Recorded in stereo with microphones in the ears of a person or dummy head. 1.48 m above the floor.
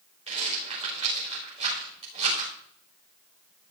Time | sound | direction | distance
0.3 | a rattle | 40° right (ahead or behind) | 6 m